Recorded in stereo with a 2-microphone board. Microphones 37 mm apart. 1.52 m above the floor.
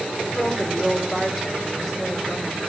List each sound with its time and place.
0.3 s a woman speaking: 5° right (ahead or behind), 6 m